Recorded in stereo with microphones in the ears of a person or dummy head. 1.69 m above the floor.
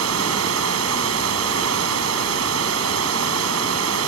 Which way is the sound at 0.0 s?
85° right.